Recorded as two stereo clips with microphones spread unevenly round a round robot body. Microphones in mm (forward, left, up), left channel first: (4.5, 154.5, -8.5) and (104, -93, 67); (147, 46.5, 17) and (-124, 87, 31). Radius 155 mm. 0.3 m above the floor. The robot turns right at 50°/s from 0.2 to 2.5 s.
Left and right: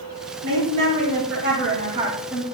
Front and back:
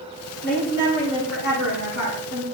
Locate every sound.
0.4 s a woman speaking: 70° right, 7.5 m; by 2.5 s 30° left, 7.5 m